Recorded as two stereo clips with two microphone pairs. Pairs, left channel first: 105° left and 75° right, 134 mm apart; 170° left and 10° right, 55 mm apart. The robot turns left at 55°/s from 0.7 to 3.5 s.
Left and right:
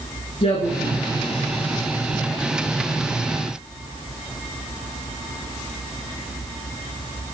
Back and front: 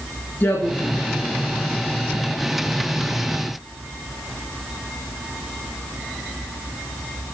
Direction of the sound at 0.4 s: 135° left.